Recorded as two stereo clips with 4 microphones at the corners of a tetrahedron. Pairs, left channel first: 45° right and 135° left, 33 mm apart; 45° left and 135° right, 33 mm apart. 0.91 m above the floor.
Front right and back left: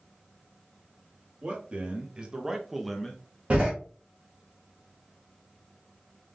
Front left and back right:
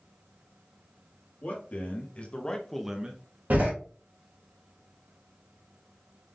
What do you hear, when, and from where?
1.4 s a man speaking: 80° left, 1.6 m; by 3.2 s 110° right, 0.7 m
3.5 s a door slam: 170° right, 2 m